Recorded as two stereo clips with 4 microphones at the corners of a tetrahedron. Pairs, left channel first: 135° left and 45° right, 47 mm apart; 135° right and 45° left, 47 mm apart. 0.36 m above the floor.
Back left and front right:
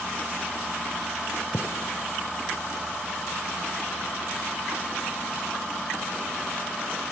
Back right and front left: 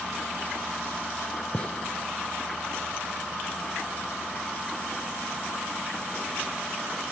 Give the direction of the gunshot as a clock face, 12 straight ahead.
7 o'clock.